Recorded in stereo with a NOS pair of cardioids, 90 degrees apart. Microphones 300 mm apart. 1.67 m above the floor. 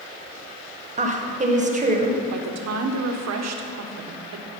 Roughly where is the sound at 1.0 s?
Ahead right.